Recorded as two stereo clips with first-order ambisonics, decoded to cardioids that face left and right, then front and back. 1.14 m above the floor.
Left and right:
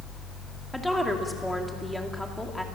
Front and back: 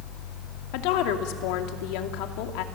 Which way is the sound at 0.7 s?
Straight ahead.